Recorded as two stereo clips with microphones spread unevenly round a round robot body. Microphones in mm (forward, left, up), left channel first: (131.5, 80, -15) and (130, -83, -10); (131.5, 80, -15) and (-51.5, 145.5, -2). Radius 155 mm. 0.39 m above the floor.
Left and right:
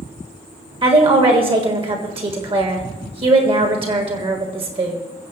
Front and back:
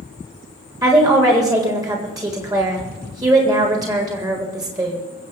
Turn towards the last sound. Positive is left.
turn(degrees=-130)